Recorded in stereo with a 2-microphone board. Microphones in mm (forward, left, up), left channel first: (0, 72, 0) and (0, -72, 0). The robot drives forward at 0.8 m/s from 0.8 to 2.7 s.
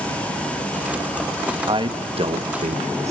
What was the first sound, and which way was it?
A man speaking, 35° right (ahead or behind).